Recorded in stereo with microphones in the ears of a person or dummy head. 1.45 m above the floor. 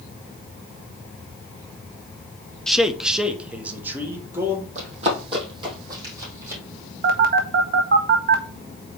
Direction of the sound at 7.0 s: 45° right (ahead or behind).